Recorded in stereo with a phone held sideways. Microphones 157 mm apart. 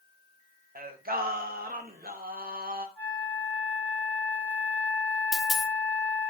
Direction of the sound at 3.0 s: 10° left (ahead or behind).